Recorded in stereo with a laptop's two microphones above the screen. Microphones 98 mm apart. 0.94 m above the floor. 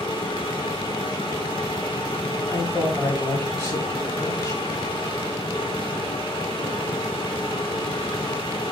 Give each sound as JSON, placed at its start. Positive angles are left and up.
{"t": 0.0, "sound": "a machine running", "side_deg": 65, "distance_m": 2.0}
{"t": 2.5, "sound": "a man speaking", "side_deg": 25, "distance_m": 5.5}